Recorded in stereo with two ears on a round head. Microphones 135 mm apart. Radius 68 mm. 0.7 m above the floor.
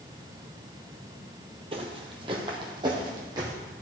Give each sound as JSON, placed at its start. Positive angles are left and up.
{"t": 1.7, "sound": "footsteps", "side_deg": -40, "distance_m": 1.4}